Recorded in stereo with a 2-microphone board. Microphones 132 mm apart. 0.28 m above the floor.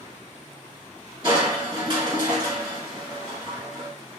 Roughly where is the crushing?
Right.